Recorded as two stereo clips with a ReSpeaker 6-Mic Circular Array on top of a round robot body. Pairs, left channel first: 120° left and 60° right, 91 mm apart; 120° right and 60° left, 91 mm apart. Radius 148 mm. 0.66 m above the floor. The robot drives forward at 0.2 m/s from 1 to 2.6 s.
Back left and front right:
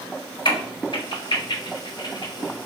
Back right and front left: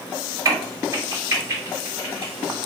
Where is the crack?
115° left, 1.7 m; by 2.3 s 125° left, 1.8 m.